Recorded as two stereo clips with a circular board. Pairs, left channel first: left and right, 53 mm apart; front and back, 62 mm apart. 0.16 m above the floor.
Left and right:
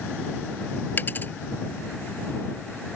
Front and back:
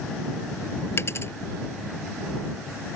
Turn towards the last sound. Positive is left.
turn(degrees=40)